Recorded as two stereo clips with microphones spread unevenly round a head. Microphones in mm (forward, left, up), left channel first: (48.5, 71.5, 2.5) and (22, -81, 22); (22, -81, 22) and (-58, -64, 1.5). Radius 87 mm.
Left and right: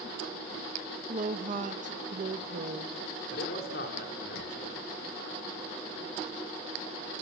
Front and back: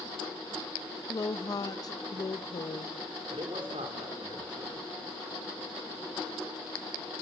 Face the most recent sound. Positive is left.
turn(degrees=115)